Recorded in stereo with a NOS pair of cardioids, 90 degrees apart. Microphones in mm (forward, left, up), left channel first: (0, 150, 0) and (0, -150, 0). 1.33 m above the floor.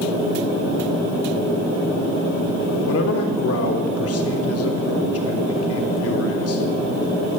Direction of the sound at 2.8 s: 50° left.